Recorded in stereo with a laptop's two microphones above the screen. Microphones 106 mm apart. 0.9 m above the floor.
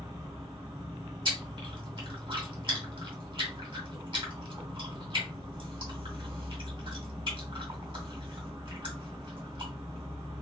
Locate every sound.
0.0 s an insect: 80° right, 1.4 m
1.2 s chewing: 55° right (ahead or behind), 2.0 m